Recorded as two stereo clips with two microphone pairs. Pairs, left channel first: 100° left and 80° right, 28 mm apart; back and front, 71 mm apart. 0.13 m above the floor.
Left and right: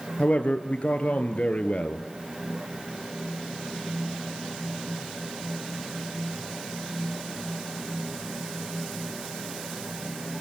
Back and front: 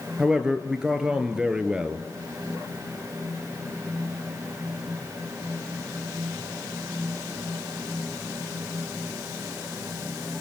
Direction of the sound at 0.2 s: 75° left.